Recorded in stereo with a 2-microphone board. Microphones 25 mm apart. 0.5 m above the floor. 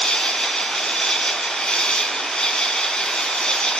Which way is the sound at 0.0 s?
30° left (ahead or behind).